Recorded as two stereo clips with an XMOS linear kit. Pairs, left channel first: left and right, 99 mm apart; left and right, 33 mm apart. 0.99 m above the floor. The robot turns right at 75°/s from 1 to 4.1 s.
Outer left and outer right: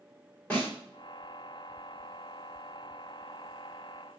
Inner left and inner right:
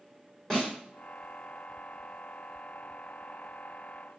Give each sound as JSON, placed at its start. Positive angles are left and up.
{"t": 0.5, "sound": "a snare drum", "side_deg": 15, "distance_m": 3.5}